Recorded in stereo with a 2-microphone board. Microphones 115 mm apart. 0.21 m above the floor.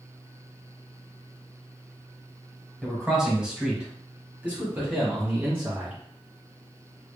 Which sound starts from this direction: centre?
A man speaking, at 2.8 s.